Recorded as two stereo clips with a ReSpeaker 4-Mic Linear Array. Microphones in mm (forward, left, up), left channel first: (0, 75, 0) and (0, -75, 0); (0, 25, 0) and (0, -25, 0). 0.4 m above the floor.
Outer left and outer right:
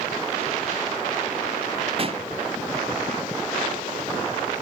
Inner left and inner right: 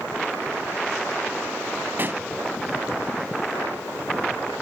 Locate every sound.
2.0 s a pop: 40° right (ahead or behind), 0.5 m